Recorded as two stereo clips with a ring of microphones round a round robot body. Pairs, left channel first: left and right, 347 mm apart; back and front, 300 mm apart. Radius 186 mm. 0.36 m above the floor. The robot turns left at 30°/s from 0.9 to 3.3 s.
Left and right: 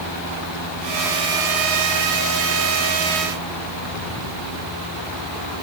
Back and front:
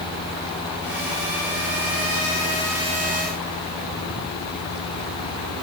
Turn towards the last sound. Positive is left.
No sound to turn to.